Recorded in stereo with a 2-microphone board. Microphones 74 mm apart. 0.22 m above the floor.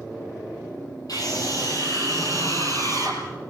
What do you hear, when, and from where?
1.1 s a scream: 60° left (ahead or behind), 8.5 m; by 3.2 s 40° left (ahead or behind), 7 m